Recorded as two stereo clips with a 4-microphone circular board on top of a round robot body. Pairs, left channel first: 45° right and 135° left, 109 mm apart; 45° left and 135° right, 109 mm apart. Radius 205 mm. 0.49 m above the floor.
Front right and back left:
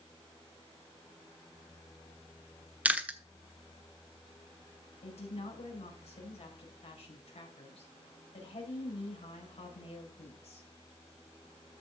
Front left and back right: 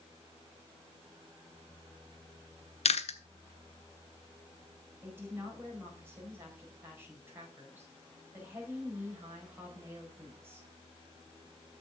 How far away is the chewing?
About 1.3 m.